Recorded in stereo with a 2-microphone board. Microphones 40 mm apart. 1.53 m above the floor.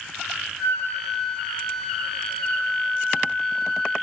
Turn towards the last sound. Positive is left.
turn(degrees=15)  # may be behind; listen again after turning